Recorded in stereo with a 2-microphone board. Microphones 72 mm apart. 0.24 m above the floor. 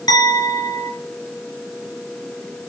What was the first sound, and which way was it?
A clink, 75° left (ahead or behind).